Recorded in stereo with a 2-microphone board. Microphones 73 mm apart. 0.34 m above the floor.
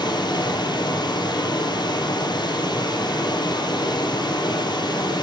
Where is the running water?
85° left, 5 m.